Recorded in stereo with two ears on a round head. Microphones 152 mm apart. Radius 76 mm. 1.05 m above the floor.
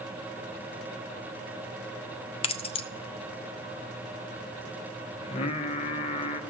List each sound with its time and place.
2.4 s keys jangling: 35° left (ahead or behind), 0.5 m
5.2 s singing: 35° left (ahead or behind), 0.8 m